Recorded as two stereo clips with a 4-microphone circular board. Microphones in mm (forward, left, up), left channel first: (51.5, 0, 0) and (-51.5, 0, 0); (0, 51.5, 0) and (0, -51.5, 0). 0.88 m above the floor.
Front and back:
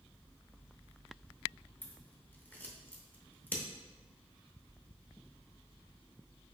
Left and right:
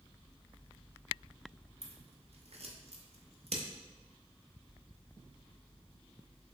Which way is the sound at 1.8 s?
75° right.